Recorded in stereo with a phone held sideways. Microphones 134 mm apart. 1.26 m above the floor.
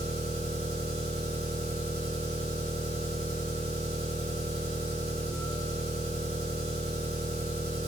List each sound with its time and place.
0.0 s an engine running: 45° right (ahead or behind), 1.2 m